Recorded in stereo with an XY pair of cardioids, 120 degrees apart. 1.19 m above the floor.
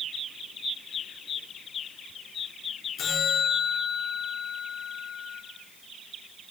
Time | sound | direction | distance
3.0 | a bell | 55° left | 4 m